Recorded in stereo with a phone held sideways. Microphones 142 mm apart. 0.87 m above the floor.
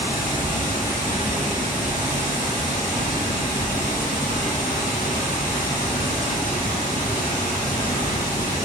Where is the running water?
70° left (ahead or behind), 1.2 m.